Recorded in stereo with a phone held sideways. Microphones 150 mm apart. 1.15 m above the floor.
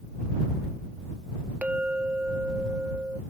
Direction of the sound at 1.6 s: 10° right (ahead or behind).